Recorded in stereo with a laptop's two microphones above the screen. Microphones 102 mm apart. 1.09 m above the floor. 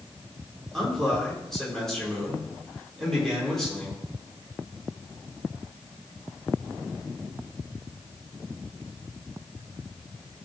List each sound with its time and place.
0.7 s a man speaking: 5° left (ahead or behind), 4 m